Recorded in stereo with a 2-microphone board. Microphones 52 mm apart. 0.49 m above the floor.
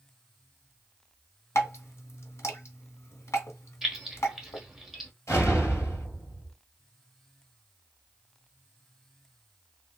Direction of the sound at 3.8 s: 5° right (ahead or behind).